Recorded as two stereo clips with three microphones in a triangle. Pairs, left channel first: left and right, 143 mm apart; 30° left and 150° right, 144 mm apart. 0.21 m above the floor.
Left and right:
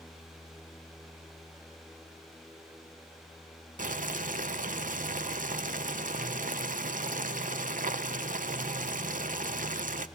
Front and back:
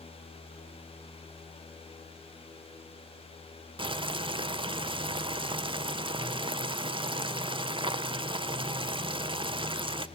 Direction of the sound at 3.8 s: 95° right.